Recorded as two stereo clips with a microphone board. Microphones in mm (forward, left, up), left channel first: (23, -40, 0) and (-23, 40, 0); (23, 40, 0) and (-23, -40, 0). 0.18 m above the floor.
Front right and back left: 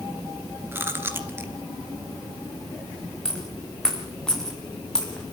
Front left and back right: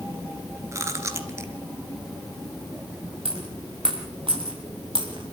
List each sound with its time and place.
0.7 s chewing: 175° right, 2 m
3.2 s a dropped coin: 145° right, 4 m